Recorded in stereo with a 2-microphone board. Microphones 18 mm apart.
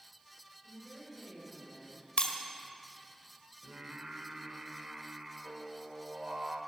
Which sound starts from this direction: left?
Breaking glass, at 2.2 s.